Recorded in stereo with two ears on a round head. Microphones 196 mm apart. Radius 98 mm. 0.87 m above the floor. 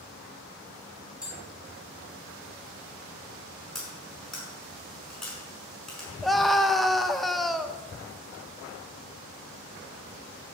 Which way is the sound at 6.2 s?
Centre (ahead or behind).